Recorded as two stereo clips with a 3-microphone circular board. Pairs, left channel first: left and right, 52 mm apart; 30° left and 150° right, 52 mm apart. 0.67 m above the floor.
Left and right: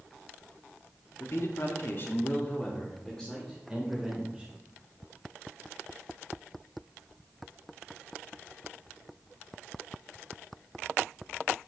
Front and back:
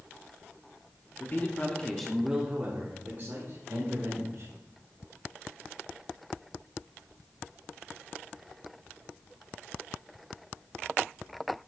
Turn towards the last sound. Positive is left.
turn(degrees=180)